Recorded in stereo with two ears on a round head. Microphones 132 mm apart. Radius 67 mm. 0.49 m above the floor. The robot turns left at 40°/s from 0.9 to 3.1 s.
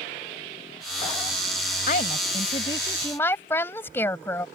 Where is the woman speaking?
65° left; by 4.5 s 15° left.